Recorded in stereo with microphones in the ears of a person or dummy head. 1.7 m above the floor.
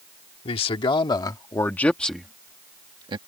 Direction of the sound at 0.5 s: 40° left (ahead or behind).